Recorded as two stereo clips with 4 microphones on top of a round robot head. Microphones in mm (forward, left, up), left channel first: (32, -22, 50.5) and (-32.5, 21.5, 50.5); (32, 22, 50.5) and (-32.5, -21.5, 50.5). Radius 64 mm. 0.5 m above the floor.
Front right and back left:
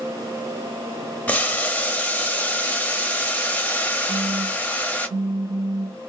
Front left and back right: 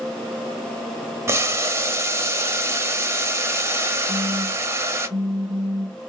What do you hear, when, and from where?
1.3 s boiling: 100° right, 0.7 m
4.1 s a phone buzzing: 170° left, 0.7 m